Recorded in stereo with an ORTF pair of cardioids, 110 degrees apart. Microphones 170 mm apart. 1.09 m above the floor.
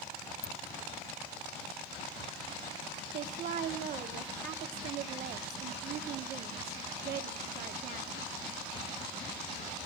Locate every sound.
0.4 s a ringtone: 20° left, 0.8 m
3.1 s a woman speaking: 65° right, 2 m